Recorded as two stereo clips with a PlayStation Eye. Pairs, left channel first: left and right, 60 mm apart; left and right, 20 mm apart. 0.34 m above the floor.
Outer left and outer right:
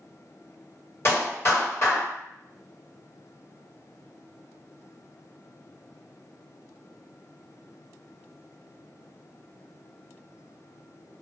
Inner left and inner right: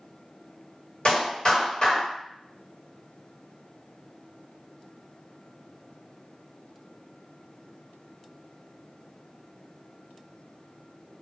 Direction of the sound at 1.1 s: 50° left (ahead or behind).